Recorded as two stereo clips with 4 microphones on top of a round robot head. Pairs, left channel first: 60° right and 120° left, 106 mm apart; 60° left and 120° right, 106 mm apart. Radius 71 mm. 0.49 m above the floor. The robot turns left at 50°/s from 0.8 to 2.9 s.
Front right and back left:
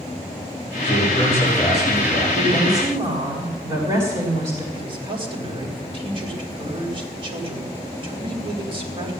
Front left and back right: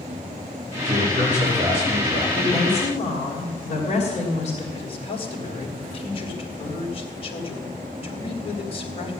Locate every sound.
0.8 s a man speaking: 105° right, 8 m; by 2.2 s 175° right, 8 m
2.3 s a woman speaking: 110° left, 3 m; by 4.6 s 85° left, 3 m
4.7 s a man speaking: 85° left, 3 m